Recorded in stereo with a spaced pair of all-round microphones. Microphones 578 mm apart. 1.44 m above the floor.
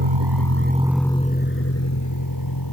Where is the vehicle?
60° right (ahead or behind); by 2.7 s 40° left (ahead or behind).